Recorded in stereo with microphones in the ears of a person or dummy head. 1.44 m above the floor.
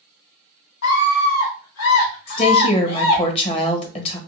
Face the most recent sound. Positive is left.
turn(degrees=30)  # may be behind; listen again after turning